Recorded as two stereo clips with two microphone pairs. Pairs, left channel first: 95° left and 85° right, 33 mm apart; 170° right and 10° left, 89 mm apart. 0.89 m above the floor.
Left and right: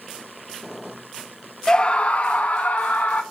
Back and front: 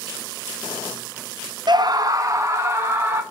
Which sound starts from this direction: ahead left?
A scream, at 1.7 s.